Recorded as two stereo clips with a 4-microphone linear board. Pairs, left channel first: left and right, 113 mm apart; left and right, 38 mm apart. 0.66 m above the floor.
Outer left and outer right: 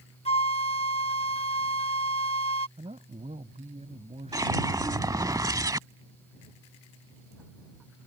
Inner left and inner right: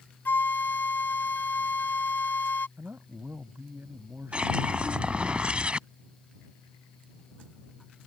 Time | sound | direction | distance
0.2 | a flute | 65° left (ahead or behind) | ?
2.8 | a man speaking | 75° right (ahead or behind) | ?
4.3 | a whoosh | 30° right (ahead or behind) | ?